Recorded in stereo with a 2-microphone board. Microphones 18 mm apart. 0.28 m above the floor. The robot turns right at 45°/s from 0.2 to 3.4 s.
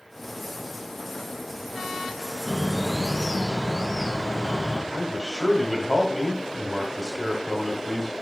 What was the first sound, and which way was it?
A bird, 35° right.